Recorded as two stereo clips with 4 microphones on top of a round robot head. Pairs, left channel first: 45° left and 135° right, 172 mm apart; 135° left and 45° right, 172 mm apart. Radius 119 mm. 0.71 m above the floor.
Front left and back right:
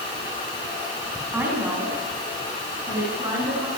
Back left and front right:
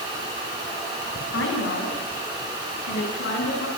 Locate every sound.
1.3 s a woman speaking: 145° left, 6 m; by 3.7 s 155° left, 8 m